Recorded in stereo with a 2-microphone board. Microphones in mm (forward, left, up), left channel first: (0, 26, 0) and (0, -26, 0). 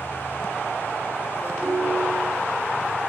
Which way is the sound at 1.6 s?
10° left (ahead or behind).